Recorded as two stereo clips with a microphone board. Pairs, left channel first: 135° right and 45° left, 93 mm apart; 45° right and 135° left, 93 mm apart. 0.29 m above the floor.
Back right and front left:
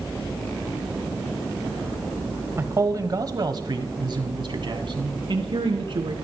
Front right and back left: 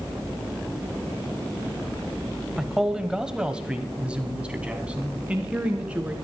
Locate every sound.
2.6 s a man speaking: 55° left, 1.1 m; by 6.2 s 60° left, 3 m